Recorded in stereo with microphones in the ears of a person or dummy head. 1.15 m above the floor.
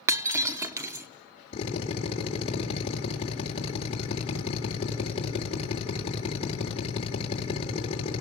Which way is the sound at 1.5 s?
35° left (ahead or behind).